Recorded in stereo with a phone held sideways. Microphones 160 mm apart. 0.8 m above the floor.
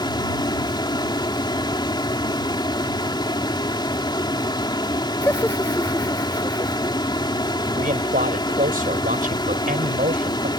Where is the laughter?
15° left (ahead or behind).